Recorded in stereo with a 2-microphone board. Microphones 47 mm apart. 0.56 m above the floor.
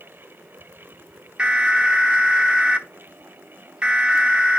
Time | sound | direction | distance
1.4 | an alarm | 20° right (ahead or behind) | 1.0 m